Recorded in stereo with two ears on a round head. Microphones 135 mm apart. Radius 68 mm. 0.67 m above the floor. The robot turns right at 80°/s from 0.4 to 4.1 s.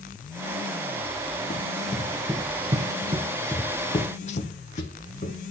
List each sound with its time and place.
1.5 s running footsteps: 50° left (ahead or behind), 1.5 m